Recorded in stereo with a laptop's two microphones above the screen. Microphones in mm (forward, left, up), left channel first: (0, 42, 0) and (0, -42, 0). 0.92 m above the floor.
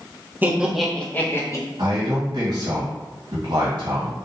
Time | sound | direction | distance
0.4 | laughter | 25° right (ahead or behind) | 0.6 m
1.8 | a man speaking | 55° right (ahead or behind) | 1.4 m